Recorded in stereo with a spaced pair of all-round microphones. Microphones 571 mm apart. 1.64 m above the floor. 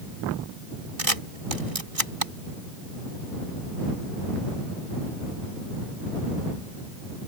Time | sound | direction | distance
1.0 | a camera shutter | 70° right (ahead or behind) | ?